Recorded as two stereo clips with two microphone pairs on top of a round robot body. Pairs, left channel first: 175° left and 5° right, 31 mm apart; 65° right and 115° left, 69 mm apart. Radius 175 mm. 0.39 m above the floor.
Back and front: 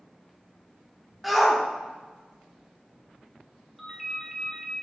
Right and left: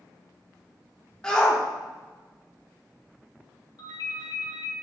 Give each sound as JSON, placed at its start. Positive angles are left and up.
{"t": 1.2, "sound": "a shout", "azimuth_deg": -100, "distance_m": 1.5}
{"t": 3.8, "sound": "a ringtone", "azimuth_deg": -90, "distance_m": 2.5}